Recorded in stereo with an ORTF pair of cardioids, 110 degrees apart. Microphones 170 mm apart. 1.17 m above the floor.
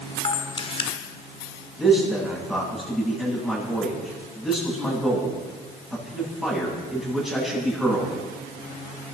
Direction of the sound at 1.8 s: Straight ahead.